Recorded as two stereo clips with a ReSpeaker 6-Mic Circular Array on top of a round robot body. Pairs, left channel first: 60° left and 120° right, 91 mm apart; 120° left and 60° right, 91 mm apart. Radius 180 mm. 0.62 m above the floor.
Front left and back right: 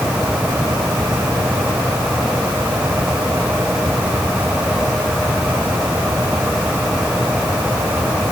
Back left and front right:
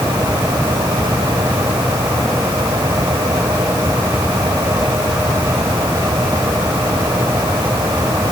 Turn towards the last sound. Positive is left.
No sound to turn to.